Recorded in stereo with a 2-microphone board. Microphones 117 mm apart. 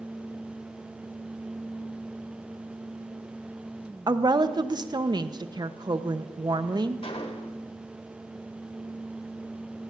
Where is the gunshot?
55° left (ahead or behind), 1.1 m.